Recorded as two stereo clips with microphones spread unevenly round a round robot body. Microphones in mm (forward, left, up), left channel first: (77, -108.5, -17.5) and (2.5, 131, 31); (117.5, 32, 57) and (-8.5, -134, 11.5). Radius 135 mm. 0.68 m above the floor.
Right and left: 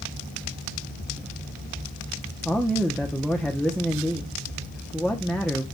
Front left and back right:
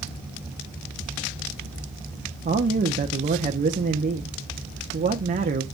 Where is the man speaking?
150° right, 0.8 m.